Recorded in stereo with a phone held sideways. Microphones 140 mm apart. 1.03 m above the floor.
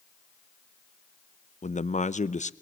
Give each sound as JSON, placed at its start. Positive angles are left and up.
{"t": 1.6, "sound": "a man speaking", "side_deg": 55, "distance_m": 0.7}